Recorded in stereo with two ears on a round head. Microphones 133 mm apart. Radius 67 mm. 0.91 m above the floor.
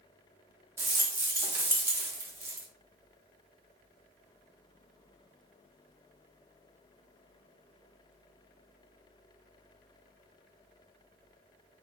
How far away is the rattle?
About 0.6 m.